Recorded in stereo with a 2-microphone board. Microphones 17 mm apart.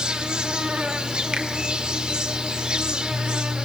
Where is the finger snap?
60° right (ahead or behind), 2.5 m.